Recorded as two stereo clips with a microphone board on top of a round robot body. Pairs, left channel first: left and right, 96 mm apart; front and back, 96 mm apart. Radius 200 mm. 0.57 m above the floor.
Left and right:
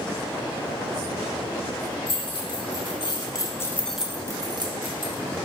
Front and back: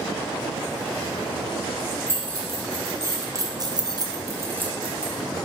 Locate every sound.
2.1 s keys jangling: 115° left, 1.6 m; by 5.4 s 95° right, 1.2 m